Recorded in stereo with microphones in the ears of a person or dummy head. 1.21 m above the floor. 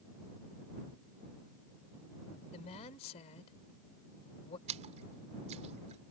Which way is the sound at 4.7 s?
40° right (ahead or behind).